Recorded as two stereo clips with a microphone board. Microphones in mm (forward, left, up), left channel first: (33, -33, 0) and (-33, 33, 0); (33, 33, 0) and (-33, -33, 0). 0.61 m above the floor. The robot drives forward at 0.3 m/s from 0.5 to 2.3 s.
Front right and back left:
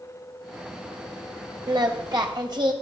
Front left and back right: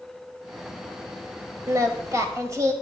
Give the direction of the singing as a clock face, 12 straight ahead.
6 o'clock.